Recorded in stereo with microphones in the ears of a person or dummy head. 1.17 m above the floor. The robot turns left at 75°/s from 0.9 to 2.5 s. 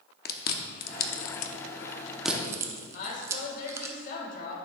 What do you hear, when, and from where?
0.2 s chewing: 45° left (ahead or behind), 0.7 m; by 3.9 s 15° right (ahead or behind), 0.7 m
2.9 s a woman speaking: 50° left (ahead or behind), 2.5 m